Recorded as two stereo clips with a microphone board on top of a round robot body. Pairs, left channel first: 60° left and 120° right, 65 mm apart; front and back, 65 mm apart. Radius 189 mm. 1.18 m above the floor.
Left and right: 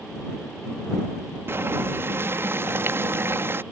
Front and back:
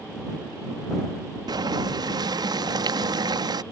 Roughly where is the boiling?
Behind.